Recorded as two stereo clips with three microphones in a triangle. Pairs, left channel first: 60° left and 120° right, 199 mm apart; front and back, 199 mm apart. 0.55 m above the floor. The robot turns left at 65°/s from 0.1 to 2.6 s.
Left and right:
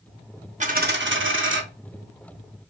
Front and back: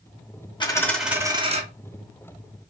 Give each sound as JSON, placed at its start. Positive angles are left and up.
{"t": 0.6, "sound": "a dropped coin", "azimuth_deg": -65, "distance_m": 0.6}